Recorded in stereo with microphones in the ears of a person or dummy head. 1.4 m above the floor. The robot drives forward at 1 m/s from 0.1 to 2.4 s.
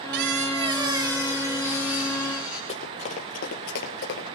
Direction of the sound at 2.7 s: 30° left (ahead or behind).